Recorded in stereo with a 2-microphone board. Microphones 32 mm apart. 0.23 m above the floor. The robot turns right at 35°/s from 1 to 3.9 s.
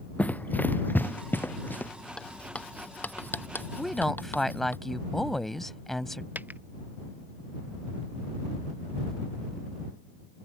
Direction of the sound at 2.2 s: 30° left (ahead or behind).